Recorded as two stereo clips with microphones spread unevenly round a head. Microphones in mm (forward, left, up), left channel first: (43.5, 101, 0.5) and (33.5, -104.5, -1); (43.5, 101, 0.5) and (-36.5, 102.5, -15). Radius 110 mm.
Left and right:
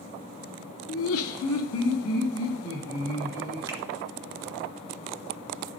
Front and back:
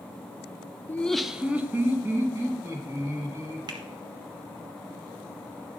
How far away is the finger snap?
About 0.8 m.